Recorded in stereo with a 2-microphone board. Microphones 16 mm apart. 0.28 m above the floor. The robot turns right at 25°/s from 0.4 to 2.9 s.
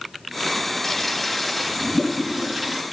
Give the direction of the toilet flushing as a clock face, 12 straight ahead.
7 o'clock.